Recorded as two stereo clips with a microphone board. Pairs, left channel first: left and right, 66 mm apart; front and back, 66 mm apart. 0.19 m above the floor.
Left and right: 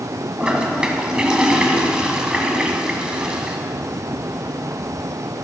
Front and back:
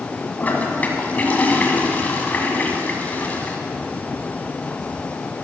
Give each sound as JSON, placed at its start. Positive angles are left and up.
{"t": 0.4, "sound": "a toilet flushing", "azimuth_deg": -25, "distance_m": 1.5}